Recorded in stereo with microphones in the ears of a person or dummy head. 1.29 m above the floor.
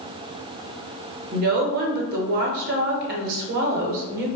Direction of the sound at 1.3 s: 50° right (ahead or behind).